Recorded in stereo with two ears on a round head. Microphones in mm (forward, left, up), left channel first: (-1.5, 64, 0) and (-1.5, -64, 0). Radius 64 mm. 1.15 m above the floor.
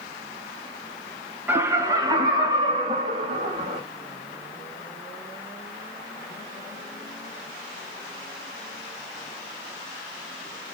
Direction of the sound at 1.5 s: 15° right (ahead or behind).